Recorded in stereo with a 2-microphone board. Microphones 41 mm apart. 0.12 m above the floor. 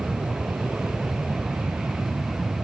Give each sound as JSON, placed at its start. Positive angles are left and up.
{"t": 0.0, "sound": "an aircraft", "side_deg": -60}